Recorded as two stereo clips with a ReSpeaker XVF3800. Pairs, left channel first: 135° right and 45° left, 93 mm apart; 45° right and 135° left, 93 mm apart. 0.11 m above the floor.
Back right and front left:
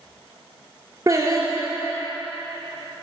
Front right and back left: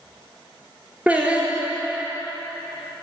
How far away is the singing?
About 1.9 m.